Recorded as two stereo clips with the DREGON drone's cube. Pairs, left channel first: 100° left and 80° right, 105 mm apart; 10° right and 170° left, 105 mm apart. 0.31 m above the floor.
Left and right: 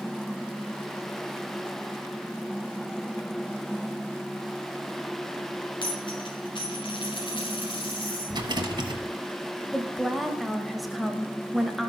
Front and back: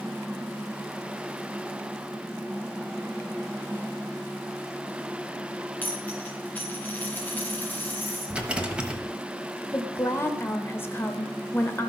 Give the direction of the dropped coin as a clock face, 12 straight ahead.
10 o'clock.